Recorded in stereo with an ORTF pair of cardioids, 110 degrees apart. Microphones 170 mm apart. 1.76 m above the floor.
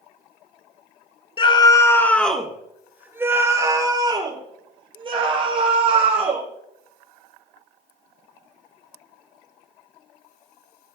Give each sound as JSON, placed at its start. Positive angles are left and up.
{"t": 1.4, "sound": "a scream", "azimuth_deg": 30, "distance_m": 2.5}